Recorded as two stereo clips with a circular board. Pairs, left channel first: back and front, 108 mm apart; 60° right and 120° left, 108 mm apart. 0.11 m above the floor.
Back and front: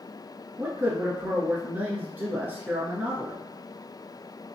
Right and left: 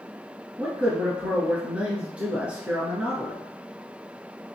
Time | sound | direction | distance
0.6 | a man speaking | 55° left | 1.2 m